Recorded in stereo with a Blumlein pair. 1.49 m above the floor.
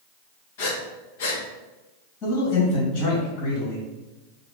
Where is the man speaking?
35° left, 1.6 m.